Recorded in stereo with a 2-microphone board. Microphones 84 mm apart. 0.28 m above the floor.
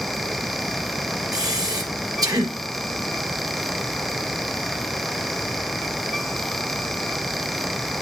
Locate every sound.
1.3 s breathing: 55° right (ahead or behind), 4 m